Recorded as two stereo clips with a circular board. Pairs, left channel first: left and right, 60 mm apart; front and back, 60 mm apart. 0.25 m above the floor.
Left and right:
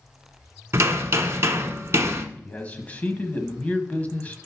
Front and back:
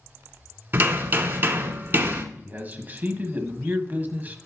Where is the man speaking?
140° left, 1.2 m.